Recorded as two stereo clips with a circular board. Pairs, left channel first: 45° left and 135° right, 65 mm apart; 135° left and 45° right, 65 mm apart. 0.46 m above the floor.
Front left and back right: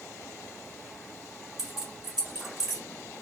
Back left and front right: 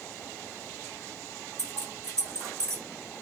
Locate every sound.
1.6 s keys jangling: 55° right, 0.9 m